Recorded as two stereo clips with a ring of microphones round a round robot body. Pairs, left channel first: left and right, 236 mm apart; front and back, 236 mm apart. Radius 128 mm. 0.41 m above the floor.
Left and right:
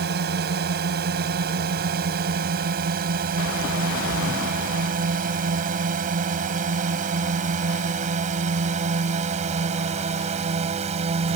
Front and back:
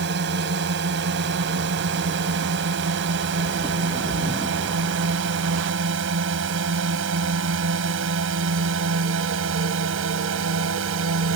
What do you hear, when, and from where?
0.0 s a drone: 135° right; by 11.4 s 155° right